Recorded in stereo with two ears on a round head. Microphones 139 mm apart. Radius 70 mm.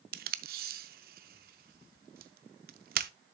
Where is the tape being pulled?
60° right (ahead or behind), 0.5 m.